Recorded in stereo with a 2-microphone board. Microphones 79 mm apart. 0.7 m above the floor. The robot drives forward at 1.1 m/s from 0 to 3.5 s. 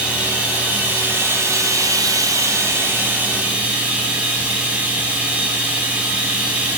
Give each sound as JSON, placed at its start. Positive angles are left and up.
{"t": 0.0, "sound": "running water", "side_deg": -15, "distance_m": 2.5}